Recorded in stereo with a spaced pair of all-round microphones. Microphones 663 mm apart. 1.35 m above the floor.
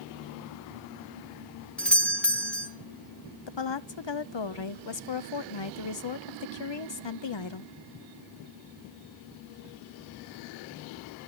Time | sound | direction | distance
1.8 | a doorbell | centre (ahead or behind) | 1.0 m
3.5 | a woman speaking | 45° left (ahead or behind) | 0.6 m